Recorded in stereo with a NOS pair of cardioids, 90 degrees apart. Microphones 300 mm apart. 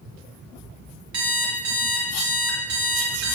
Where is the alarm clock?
70° right, 1.3 m.